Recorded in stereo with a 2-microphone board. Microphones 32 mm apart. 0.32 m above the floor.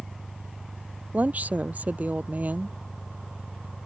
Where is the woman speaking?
55° right (ahead or behind).